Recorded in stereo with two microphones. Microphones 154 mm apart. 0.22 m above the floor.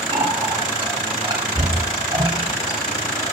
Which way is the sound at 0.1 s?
25° right (ahead or behind).